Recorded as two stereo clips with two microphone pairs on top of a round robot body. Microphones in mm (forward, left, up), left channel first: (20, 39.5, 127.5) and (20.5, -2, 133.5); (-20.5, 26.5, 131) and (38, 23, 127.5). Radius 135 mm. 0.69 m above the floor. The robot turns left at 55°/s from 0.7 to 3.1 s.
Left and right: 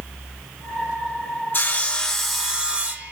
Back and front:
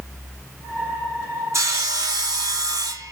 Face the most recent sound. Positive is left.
turn(degrees=-45)